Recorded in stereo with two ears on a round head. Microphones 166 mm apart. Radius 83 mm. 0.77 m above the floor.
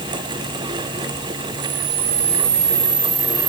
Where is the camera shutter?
35° right (ahead or behind), 4 m.